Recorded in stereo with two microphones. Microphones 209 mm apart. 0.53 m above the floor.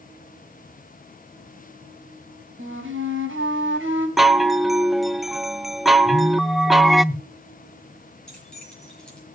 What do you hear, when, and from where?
2.6 s a flute: 75° right (ahead or behind), 4 m
4.2 s a chime: centre (ahead or behind), 0.6 m
6.0 s a phone buzzing: 15° left (ahead or behind), 5 m
8.3 s keys jangling: 5° left (ahead or behind), 7 m